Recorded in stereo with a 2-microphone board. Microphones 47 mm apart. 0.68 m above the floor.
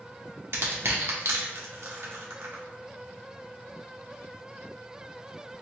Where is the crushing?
65° right (ahead or behind), 0.8 m.